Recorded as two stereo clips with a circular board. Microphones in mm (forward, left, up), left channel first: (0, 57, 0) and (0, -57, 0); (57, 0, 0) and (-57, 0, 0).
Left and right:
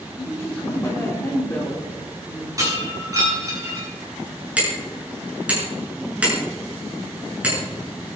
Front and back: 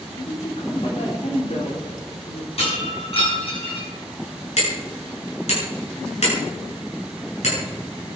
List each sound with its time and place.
0.2 s a woman speaking: 20° left, 4 m
2.6 s breaking glass: 30° right, 7.5 m
4.6 s hammering: 10° right, 7.5 m